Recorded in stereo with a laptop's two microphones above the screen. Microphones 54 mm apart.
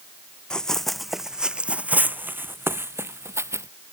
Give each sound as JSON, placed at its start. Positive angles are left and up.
{"t": 0.5, "sound": "running footsteps", "side_deg": 15}